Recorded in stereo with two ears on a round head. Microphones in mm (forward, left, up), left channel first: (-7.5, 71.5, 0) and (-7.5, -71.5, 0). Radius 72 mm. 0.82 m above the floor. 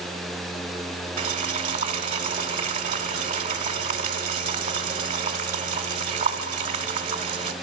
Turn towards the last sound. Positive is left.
turn(degrees=-50)  # may be behind; listen again after turning